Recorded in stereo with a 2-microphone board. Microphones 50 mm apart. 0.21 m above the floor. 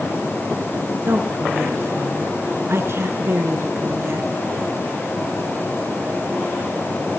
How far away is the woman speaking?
About 2.5 m.